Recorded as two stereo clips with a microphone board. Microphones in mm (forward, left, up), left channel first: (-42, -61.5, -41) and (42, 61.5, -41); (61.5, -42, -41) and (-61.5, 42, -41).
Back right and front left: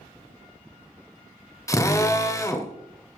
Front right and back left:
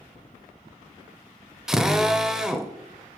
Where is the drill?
135° right, 0.8 m.